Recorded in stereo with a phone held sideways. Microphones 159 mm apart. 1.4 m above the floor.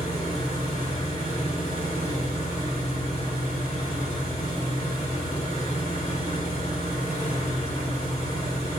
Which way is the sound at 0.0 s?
45° left (ahead or behind).